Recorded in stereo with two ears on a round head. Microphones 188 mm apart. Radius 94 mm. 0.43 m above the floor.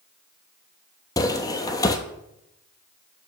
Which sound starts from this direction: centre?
Footsteps, at 1.2 s.